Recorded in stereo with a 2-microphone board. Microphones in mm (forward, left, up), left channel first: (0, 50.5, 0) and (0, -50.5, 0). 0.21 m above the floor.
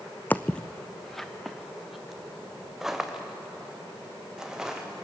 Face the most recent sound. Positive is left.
turn(degrees=-5)  # may be behind; listen again after turning